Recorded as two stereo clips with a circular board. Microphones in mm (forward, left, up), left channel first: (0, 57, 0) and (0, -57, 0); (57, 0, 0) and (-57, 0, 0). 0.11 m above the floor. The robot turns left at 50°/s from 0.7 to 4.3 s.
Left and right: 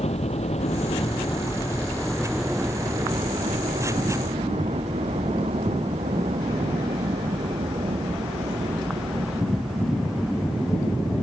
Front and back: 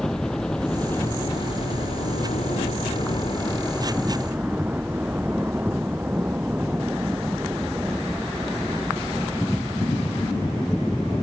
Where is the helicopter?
85° left; by 11.2 s 110° right.